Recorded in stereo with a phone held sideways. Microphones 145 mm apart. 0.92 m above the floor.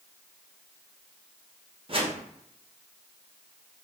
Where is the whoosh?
40° right (ahead or behind), 0.6 m.